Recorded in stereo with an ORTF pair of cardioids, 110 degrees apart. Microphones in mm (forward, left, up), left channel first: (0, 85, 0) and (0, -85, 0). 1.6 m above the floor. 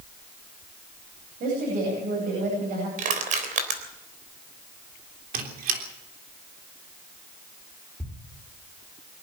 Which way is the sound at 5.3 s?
65° right.